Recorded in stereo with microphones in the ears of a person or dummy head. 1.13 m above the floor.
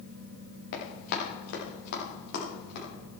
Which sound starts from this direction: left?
Running footsteps, at 0.7 s.